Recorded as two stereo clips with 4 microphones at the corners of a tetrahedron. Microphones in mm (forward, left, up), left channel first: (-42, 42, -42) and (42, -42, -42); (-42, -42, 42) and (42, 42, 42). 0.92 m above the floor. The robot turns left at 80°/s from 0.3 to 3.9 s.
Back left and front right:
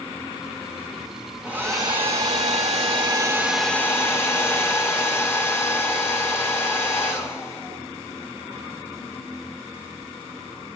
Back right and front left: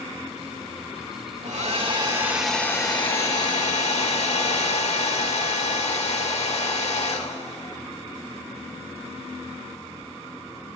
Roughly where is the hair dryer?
Ahead left.